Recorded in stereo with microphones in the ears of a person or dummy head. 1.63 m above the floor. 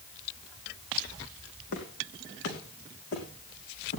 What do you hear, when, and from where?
1.7 s footsteps: 55° left (ahead or behind), 4.5 m; by 4.0 s 50° left (ahead or behind), 5.5 m